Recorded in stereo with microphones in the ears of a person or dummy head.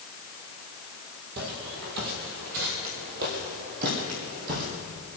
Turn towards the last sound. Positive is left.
turn(degrees=-50)  # may be behind; listen again after turning